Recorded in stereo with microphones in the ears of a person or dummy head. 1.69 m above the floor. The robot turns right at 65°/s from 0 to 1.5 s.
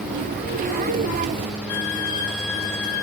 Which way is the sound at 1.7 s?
20° left (ahead or behind).